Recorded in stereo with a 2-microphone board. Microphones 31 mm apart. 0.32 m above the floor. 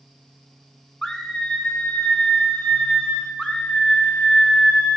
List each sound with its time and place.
1.0 s a scream: 20° left (ahead or behind), 3.5 m; by 3.3 s 35° left (ahead or behind), 4.5 m
3.4 s a scream: 35° left (ahead or behind), 3 m